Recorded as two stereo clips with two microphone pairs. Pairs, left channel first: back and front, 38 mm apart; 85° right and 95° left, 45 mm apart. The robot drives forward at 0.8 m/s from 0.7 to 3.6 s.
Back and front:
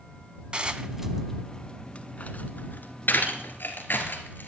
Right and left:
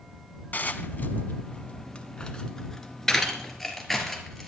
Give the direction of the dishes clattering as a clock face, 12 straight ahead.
2 o'clock.